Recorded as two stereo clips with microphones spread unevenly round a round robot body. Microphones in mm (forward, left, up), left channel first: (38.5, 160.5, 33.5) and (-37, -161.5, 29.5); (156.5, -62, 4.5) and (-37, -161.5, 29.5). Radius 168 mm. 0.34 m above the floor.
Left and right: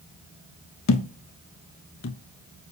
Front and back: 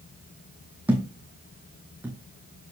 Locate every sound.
0.9 s a thud: 125° left, 0.6 m